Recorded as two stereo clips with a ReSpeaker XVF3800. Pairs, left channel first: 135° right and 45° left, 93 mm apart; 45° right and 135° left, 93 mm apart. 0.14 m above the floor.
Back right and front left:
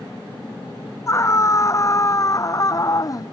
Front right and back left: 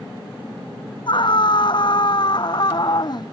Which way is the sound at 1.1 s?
75° right.